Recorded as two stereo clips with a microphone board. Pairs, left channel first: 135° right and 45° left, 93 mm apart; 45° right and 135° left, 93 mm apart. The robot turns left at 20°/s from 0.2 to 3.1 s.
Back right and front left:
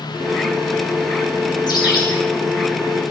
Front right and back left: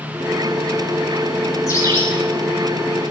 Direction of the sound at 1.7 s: 95° right.